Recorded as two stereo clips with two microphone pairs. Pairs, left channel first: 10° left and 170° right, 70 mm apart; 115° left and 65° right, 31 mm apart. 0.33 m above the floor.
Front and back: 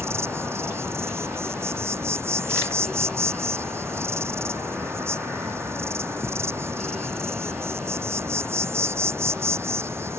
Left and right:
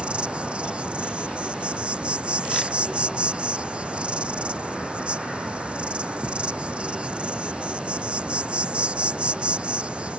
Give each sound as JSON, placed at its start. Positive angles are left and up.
{"t": 0.0, "sound": "an insect", "azimuth_deg": -120}